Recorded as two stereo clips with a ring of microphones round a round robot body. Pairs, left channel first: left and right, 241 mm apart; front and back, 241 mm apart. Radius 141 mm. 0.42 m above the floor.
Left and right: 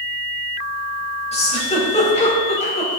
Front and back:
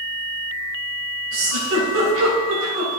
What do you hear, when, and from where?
1.3 s a giggle: 150° left, 3 m